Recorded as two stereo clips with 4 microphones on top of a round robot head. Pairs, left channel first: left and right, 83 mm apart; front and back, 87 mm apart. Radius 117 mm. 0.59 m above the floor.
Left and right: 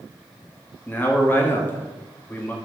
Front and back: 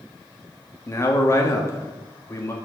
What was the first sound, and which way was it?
A man speaking, 35° left.